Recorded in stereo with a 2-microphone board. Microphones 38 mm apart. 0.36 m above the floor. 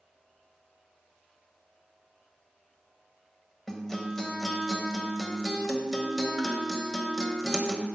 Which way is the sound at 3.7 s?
10° left (ahead or behind).